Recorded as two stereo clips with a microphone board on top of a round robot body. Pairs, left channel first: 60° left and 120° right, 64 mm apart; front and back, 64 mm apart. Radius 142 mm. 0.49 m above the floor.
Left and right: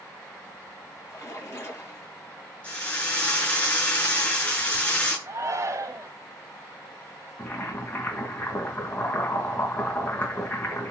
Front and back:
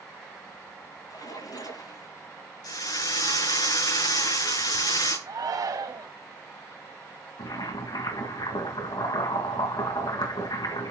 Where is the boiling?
Straight ahead, 4 m.